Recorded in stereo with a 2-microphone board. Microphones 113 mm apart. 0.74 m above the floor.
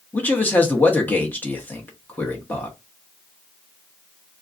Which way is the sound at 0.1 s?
15° left (ahead or behind).